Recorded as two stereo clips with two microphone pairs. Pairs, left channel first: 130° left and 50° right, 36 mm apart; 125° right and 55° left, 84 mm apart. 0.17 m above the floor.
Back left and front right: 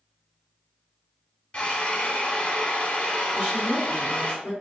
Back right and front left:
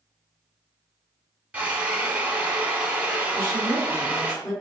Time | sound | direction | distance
1.5 | a drill | 120° left | 0.7 m
3.3 | a woman speaking | 85° right | 1.9 m